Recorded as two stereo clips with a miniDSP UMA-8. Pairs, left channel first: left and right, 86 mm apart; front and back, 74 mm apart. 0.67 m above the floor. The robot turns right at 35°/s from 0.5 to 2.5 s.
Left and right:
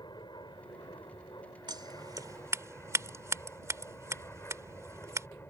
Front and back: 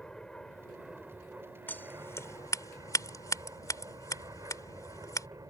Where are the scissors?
65° right; by 5.3 s 35° right.